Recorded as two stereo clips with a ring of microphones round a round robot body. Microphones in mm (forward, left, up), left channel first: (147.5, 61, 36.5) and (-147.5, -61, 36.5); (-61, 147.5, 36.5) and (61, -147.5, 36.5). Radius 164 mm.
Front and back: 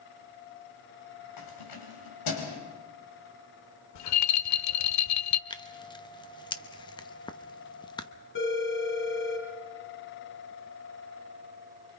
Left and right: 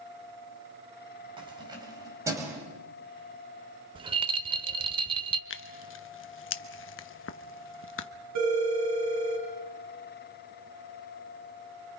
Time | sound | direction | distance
1.4 | keys jangling | 5° left | 4 m
4.0 | a rattle | 5° left | 0.6 m
5.5 | tearing paper | 90° left | 0.9 m
8.3 | a phone ringing | 30° right | 4.5 m